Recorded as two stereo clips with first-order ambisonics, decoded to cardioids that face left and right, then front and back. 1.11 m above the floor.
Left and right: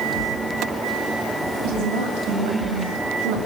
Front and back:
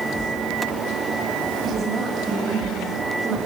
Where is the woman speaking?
115° right, 7 m; by 3.4 s 105° right, 5 m.